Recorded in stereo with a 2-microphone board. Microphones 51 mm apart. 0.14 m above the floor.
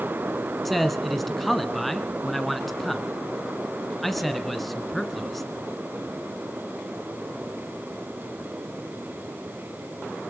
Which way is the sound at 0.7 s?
5° left (ahead or behind).